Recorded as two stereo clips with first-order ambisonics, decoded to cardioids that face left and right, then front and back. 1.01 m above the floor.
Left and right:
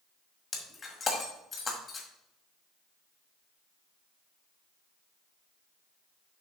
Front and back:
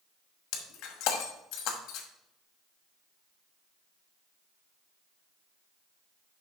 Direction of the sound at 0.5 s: 20° left.